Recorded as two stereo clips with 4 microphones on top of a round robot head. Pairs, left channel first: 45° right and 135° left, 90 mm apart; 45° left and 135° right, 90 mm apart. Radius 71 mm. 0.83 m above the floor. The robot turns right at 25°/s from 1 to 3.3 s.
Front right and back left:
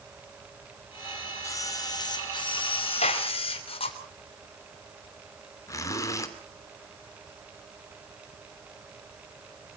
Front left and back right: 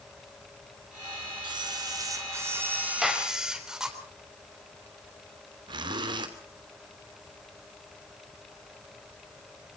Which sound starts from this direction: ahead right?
A gunshot, at 3.0 s.